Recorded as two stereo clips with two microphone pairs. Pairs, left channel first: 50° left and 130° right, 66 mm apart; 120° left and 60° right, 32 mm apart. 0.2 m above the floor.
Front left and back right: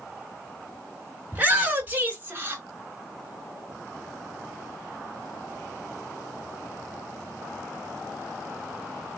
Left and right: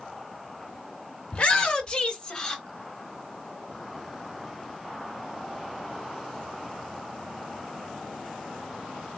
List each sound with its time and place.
1.3 s a shout: 170° left, 2.5 m; by 2.6 s 175° right, 2.5 m